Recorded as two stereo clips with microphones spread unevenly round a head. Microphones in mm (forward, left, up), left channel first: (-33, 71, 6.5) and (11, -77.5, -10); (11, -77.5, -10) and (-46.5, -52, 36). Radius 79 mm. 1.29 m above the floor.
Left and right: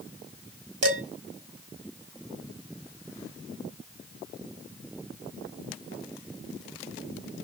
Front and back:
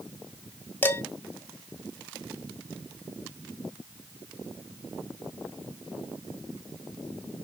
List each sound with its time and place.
0.8 s dishes clattering: 90° right, 4 m